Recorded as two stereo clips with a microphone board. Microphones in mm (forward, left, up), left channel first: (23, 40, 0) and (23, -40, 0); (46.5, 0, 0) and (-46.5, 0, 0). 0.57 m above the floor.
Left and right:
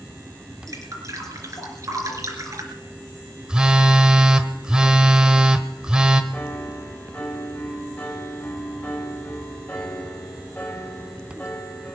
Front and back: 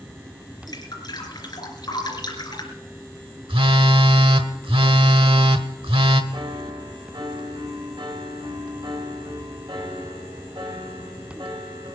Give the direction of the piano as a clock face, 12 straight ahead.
7 o'clock.